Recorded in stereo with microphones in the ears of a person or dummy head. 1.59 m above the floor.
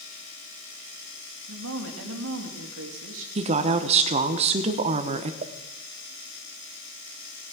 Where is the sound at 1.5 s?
75° right (ahead or behind), 2.5 m.